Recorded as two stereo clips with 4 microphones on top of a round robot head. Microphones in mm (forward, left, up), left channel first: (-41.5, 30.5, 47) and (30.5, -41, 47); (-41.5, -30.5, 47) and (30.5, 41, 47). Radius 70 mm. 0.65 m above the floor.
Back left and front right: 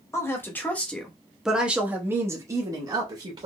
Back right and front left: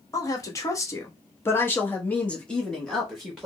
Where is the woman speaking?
175° right, 1.3 m; by 3.5 s 40° right, 1.4 m.